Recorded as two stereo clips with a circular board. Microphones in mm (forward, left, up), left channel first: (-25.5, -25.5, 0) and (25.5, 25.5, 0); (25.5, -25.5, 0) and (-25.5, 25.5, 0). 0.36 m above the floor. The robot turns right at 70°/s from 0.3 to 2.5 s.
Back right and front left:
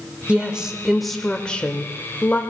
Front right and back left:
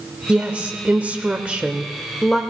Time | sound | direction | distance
0.3 | a woman speaking | 90° left | 1.0 m